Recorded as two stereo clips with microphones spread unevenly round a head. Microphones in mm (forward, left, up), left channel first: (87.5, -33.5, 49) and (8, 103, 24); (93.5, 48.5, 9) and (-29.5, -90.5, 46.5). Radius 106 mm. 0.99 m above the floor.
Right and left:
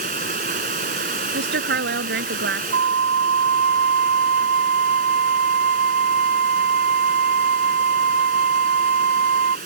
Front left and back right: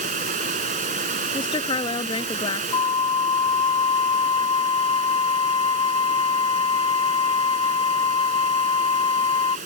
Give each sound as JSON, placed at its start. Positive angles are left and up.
{"t": 0.0, "sound": "running water", "azimuth_deg": 170}
{"t": 1.3, "sound": "a woman speaking", "azimuth_deg": 120}
{"t": 2.7, "sound": "a flute", "azimuth_deg": 120}